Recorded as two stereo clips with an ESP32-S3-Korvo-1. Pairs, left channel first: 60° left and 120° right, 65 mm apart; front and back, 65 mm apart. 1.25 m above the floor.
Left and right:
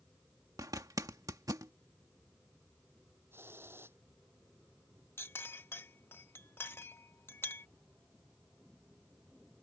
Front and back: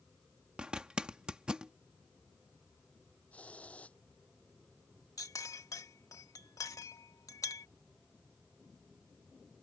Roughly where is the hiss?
Right.